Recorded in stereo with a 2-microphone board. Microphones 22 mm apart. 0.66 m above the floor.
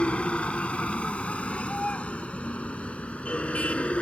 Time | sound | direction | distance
0.0 | a vehicle | 70° left (ahead or behind) | ?